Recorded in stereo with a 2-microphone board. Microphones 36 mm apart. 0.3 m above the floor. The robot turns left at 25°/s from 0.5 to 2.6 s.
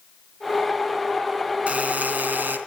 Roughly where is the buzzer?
Right.